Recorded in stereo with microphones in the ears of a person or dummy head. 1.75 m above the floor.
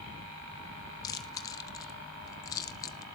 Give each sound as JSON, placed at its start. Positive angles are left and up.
{"t": 1.0, "sound": "chewing", "side_deg": 20, "distance_m": 0.9}